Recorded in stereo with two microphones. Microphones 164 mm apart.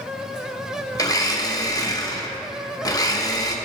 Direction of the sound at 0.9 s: 20° left (ahead or behind).